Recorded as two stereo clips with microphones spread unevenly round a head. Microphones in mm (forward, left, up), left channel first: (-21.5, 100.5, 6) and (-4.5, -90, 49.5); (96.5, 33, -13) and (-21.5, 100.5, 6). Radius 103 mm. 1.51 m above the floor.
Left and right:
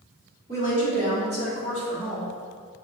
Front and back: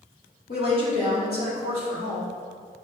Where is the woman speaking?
25° right, 2.5 m; by 2.3 s 55° right, 4 m.